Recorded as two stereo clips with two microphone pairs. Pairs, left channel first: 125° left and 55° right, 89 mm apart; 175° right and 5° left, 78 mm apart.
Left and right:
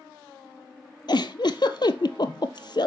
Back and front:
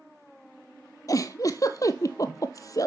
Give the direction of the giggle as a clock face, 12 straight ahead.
7 o'clock.